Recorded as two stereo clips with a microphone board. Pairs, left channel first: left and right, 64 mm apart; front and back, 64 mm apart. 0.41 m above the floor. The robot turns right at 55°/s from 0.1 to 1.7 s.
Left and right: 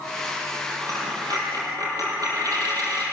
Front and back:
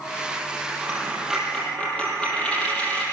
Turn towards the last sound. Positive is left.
turn(degrees=-70)